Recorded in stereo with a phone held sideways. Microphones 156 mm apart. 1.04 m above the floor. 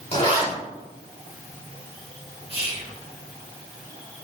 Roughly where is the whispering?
Right.